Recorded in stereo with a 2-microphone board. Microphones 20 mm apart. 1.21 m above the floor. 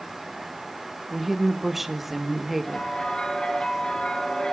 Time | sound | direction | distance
1.1 | a woman speaking | 10° right (ahead or behind) | 1.5 m
2.6 | a bell | 40° left (ahead or behind) | 4 m